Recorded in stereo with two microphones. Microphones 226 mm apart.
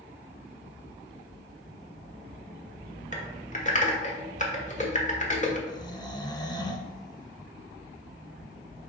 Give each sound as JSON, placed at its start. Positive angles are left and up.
{"t": 3.1, "sound": "typing on a keyboard", "side_deg": 35, "distance_m": 1.2}
{"t": 5.7, "sound": "snoring", "side_deg": 20, "distance_m": 0.7}